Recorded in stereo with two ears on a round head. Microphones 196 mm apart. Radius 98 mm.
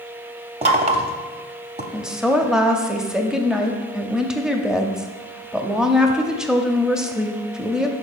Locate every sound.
0.6 s knocking: 30° right (ahead or behind), 0.9 m
1.9 s a woman speaking: 5° right (ahead or behind), 0.7 m